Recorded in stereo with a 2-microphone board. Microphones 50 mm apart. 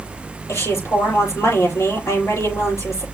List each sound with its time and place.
0.5 s a woman speaking: 65° left (ahead or behind), 7 m